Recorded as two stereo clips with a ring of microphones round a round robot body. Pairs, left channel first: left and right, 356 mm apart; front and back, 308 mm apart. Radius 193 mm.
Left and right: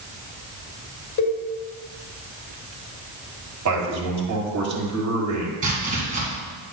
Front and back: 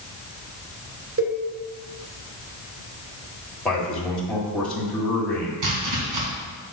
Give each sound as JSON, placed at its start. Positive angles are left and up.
{"t": 1.2, "sound": "a cowbell", "azimuth_deg": 140, "distance_m": 2.5}
{"t": 3.6, "sound": "a man speaking", "azimuth_deg": -85, "distance_m": 1.7}
{"t": 5.6, "sound": "chopping", "azimuth_deg": -160, "distance_m": 1.5}